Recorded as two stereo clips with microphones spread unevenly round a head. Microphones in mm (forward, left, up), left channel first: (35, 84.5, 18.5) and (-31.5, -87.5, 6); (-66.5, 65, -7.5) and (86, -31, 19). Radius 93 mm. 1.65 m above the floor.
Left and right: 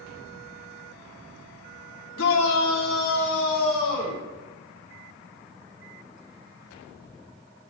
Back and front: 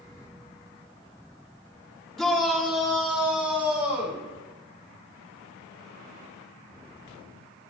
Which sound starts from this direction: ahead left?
A shout, at 2.2 s.